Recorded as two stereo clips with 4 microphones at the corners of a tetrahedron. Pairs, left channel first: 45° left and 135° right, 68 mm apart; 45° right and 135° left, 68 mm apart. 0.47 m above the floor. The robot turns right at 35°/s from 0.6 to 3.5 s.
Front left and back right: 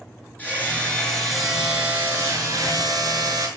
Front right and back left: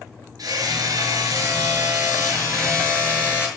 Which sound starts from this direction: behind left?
Hammering, at 0.4 s.